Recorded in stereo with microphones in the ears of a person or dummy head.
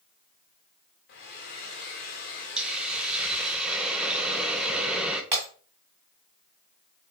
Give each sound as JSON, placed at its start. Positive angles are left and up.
{"t": 1.1, "sound": "a hair dryer", "side_deg": 50, "distance_m": 1.4}
{"t": 2.6, "sound": "a hiss", "side_deg": -5, "distance_m": 0.7}
{"t": 5.3, "sound": "breaking glass", "side_deg": -15, "distance_m": 1.5}